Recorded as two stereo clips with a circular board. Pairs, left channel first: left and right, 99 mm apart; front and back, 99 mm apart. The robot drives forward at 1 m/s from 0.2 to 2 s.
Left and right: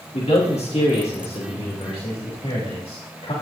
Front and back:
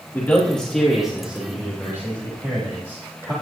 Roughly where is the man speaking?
Left.